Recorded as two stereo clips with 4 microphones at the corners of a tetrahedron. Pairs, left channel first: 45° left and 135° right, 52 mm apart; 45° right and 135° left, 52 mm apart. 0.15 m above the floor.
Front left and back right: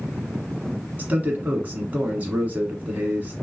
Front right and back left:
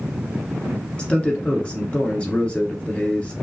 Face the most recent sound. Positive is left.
turn(degrees=-95)